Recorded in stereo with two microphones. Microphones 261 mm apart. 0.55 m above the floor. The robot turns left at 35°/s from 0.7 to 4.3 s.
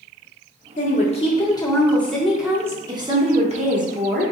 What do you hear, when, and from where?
0.8 s a woman speaking: 50° left, 0.9 m; by 4.3 s 70° right, 0.9 m